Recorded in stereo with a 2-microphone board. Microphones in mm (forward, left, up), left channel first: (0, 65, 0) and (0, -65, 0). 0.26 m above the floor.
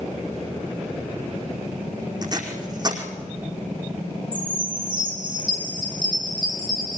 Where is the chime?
40° right (ahead or behind), 5.5 m.